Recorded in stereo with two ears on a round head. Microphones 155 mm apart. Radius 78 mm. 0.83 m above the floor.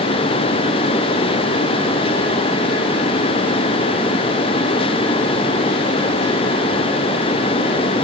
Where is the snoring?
I don't hear snoring.